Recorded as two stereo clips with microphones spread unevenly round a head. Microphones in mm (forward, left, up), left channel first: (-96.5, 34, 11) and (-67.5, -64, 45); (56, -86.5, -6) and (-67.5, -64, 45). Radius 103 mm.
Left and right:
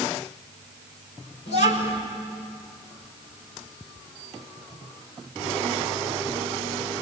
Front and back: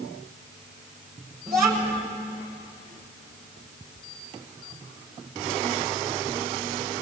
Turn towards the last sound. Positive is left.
turn(degrees=110)